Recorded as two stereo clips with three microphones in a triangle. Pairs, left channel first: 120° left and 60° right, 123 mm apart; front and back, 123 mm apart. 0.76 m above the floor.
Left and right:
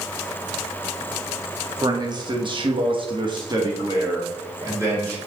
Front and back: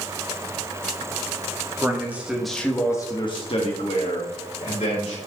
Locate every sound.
1.8 s a man speaking: 115° right, 1.7 m; by 5.2 s 10° left, 3 m